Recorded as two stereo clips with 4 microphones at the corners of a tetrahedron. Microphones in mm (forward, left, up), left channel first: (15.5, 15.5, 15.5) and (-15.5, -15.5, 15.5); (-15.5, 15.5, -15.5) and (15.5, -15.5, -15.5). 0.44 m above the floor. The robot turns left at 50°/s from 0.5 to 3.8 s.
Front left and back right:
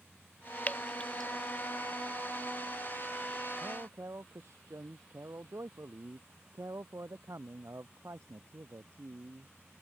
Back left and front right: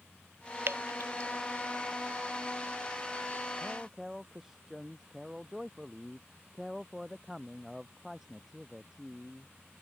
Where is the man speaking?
115° right; by 9.5 s 125° right.